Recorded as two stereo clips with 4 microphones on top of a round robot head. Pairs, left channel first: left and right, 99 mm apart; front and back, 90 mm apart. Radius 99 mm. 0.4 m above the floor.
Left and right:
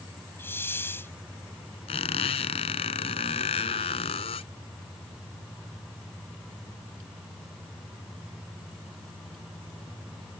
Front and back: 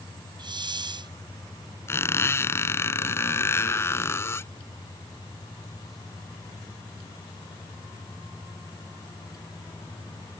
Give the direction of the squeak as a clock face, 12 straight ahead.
10 o'clock.